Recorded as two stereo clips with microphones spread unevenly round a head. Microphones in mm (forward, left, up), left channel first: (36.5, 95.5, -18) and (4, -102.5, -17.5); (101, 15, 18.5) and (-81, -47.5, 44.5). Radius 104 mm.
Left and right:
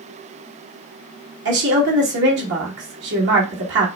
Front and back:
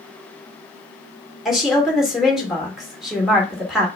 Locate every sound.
1.4 s a woman speaking: 70° right, 2 m